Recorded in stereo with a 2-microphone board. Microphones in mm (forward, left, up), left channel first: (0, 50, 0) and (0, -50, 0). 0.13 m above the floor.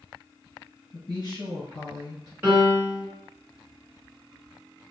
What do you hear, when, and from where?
0.9 s a woman speaking: 45° left (ahead or behind), 1.4 m
2.4 s a piano: 20° right (ahead or behind), 1.6 m